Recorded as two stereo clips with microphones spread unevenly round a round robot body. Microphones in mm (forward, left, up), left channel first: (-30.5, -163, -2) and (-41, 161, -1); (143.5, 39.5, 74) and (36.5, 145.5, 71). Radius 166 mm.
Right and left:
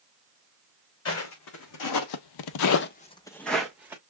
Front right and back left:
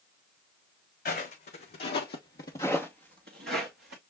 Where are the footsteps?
40° right, 1.4 m; by 4.0 s 175° left, 1.4 m.